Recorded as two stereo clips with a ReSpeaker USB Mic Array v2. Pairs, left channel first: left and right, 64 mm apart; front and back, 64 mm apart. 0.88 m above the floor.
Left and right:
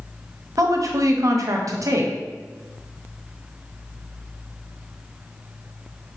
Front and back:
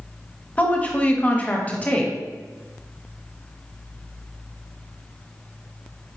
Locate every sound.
0.6 s a woman speaking: 65° right, 0.8 m